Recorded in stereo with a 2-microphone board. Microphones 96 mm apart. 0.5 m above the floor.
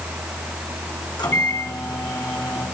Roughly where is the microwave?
Left.